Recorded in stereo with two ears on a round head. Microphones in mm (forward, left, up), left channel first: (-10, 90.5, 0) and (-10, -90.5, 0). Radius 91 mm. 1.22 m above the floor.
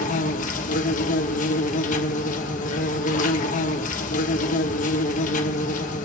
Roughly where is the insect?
Left.